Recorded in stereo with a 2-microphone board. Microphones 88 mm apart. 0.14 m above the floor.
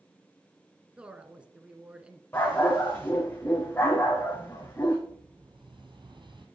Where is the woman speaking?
15° right (ahead or behind), 1.4 m.